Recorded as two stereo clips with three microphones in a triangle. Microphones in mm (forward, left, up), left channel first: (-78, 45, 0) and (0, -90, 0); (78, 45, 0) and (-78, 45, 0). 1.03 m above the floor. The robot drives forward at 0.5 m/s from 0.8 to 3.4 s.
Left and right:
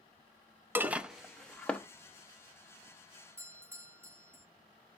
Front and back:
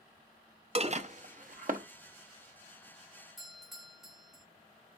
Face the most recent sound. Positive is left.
turn(degrees=-95)